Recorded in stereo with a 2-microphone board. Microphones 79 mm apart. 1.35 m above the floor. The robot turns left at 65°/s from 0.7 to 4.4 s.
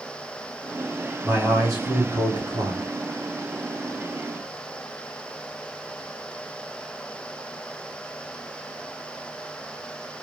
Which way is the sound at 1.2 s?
10° right.